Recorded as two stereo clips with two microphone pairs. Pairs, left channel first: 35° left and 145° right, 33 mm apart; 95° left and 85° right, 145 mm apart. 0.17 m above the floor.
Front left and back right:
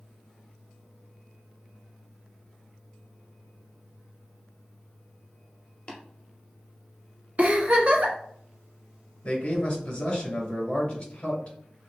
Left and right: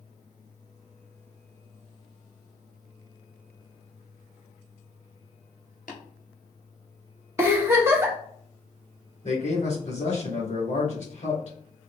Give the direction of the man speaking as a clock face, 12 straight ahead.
9 o'clock.